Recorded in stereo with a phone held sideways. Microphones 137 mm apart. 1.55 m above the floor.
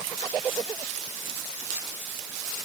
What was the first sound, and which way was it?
Only background noise.